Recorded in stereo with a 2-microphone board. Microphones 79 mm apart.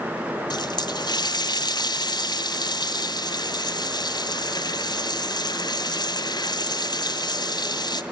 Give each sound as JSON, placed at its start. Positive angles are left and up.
{"t": 0.5, "sound": "a running tap", "side_deg": 65, "distance_m": 2.0}